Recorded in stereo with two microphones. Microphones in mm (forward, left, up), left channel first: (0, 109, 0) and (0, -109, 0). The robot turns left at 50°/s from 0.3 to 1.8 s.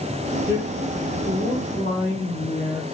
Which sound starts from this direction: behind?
A man speaking, at 0.5 s.